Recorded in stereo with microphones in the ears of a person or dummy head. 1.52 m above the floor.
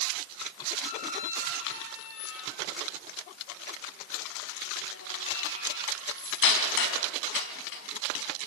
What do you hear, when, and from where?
0.8 s a squeak: 75° left (ahead or behind), 4.5 m